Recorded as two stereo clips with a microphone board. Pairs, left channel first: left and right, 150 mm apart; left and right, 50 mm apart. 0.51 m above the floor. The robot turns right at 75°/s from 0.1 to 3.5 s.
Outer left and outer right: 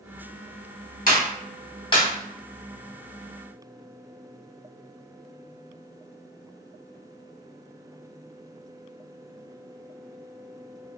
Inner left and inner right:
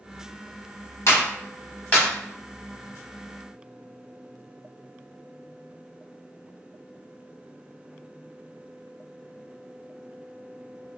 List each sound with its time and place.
1.1 s a clap: 60° left (ahead or behind), 1.1 m; by 2.1 s 20° left (ahead or behind), 1.1 m